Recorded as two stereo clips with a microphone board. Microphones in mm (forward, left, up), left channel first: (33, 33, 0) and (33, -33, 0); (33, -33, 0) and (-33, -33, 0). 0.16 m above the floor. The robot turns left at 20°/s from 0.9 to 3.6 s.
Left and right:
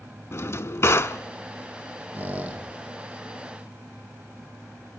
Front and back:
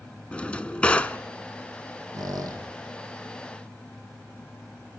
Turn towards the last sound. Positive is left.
turn(degrees=180)